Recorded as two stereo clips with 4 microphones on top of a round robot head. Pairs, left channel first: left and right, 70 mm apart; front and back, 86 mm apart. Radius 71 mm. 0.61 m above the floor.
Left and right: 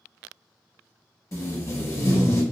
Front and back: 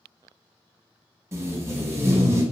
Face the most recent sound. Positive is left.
turn(degrees=125)